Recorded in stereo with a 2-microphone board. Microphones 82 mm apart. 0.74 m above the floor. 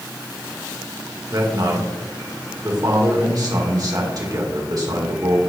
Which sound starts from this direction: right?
A man speaking, at 1.3 s.